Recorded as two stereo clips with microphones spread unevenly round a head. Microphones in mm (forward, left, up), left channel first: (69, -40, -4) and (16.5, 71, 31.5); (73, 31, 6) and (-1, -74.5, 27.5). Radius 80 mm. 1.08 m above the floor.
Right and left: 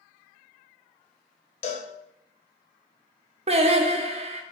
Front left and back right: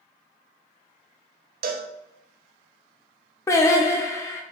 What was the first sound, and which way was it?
A cowbell, 120° right.